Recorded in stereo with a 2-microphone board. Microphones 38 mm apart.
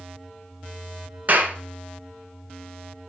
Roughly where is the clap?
Right.